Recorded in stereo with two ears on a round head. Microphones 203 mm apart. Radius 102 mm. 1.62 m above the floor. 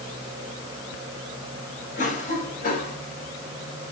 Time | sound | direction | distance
2.0 | a cough | 35° left (ahead or behind) | 7.5 m